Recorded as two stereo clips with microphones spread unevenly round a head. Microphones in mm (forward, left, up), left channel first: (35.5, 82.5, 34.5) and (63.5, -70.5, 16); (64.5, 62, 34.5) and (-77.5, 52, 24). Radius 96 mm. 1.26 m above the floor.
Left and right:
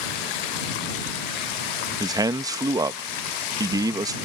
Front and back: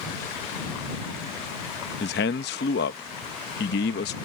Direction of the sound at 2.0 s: 10° right.